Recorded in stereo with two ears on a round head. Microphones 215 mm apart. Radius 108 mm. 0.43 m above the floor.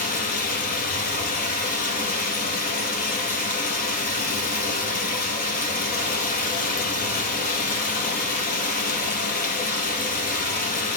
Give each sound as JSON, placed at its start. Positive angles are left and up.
{"t": 0.0, "sound": "running water", "side_deg": 40, "distance_m": 2.5}